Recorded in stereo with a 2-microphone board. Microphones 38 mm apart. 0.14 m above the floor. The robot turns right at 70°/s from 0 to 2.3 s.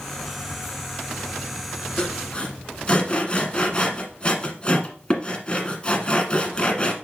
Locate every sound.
2.0 s sawing: 20° left (ahead or behind), 1.3 m; by 6.9 s 25° left (ahead or behind), 1.3 m